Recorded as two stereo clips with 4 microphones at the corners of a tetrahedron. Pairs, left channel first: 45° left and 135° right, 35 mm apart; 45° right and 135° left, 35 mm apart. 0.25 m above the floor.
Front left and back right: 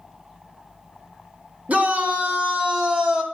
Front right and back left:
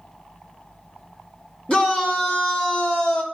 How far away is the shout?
About 2.5 m.